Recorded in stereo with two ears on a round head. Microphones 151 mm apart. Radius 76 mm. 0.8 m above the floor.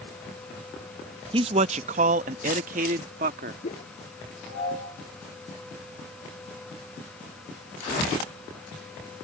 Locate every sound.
1.3 s a man speaking: 30° right (ahead or behind); by 3.5 s 50° right (ahead or behind)
3.6 s a whoosh: 40° left (ahead or behind)